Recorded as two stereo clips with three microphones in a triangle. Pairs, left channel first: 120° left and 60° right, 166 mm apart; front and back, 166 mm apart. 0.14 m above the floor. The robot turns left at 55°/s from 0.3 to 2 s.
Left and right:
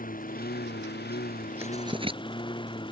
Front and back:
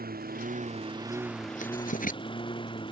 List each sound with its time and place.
0.0 s a lawn mower: 155° left; by 2.9 s 60° left
1.6 s writing: 10° left; by 2.2 s 10° right